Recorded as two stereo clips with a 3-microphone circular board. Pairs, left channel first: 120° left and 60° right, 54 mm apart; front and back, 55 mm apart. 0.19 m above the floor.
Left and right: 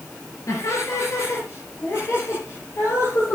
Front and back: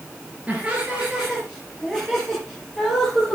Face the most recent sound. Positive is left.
turn(degrees=85)